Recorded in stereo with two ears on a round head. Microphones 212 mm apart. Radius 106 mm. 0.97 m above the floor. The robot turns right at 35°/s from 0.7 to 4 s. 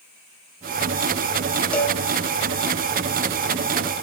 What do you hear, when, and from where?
1.7 s a cowbell: 5° left (ahead or behind), 1.7 m; by 2.0 s 15° left (ahead or behind), 1.7 m